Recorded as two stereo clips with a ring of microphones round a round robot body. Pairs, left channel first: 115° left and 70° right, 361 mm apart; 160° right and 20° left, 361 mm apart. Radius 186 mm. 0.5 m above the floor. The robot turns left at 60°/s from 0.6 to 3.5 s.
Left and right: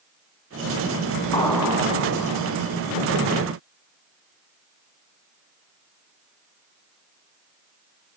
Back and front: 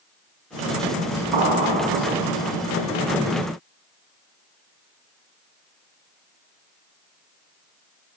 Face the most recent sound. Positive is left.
turn(degrees=-95)